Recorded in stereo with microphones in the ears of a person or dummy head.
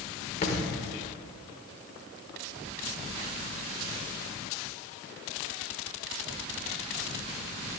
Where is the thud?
40° left (ahead or behind), 1.4 m.